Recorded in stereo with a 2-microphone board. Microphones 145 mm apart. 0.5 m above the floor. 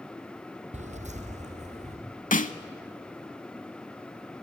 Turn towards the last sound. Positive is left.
turn(degrees=70)  # may be behind; listen again after turning